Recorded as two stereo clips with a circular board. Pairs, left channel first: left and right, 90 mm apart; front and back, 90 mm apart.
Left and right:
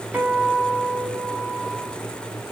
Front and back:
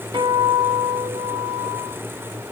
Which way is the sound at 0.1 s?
165° right.